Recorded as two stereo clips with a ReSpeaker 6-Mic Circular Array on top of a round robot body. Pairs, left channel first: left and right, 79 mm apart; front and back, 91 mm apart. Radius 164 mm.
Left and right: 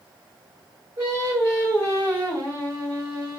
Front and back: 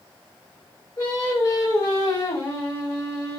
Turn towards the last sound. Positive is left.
turn(degrees=-55)